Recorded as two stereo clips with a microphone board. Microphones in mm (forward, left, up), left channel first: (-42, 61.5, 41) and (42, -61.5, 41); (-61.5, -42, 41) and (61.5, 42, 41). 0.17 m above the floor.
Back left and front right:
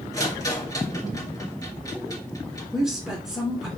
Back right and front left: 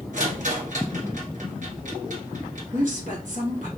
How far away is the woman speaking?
About 2.5 m.